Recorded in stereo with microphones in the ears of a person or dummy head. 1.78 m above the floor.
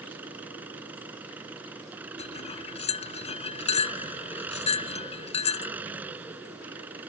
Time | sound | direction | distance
0.0 | an engine running | 10° right (ahead or behind) | ?
2.2 | cutlery clinking | 30° left (ahead or behind) | ?